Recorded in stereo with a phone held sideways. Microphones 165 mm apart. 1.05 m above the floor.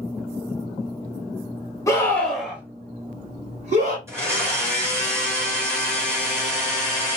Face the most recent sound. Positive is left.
turn(degrees=-15)  # may be behind; listen again after turning